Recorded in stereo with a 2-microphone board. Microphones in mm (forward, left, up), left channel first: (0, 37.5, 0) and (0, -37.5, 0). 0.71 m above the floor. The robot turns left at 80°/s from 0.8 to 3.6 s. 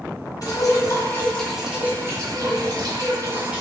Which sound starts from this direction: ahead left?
Dripping, at 0.4 s.